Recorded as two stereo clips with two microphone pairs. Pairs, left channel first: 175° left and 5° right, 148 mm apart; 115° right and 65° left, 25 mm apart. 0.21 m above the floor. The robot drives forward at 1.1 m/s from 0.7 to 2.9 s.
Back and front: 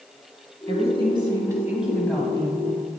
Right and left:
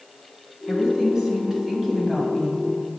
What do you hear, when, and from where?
0.7 s a woman speaking: 10° left, 1.9 m; by 2.6 s 155° left, 1.5 m